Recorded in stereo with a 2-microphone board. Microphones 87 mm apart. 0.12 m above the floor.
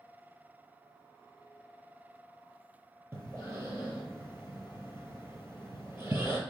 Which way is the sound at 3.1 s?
25° right (ahead or behind).